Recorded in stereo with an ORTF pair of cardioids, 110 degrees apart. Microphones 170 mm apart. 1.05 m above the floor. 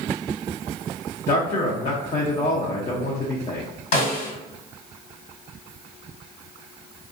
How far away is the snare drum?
About 1.6 m.